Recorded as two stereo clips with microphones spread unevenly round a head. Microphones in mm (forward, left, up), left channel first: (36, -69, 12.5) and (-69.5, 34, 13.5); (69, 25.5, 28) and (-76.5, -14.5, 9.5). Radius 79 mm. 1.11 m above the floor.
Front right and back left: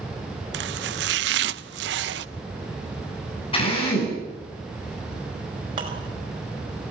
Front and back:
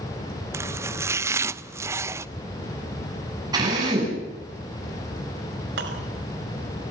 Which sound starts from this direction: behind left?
Chopping, at 0.5 s.